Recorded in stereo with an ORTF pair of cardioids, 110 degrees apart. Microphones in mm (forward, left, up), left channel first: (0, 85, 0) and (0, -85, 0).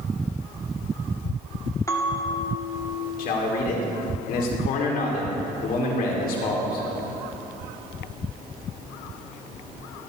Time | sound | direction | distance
1.9 | a bell | 20° left | 1.8 m
3.2 | a man speaking | 65° left | 2.5 m